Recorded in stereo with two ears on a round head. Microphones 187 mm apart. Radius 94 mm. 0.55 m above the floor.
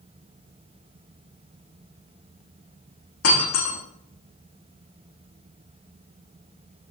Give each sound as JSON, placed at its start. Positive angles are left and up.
{"t": 3.2, "sound": "breaking glass", "side_deg": 85, "distance_m": 7.0}